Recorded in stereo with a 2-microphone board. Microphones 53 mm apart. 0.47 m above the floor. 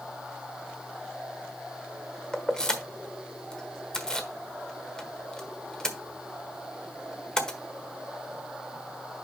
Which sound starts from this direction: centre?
Keys jangling, at 2.3 s.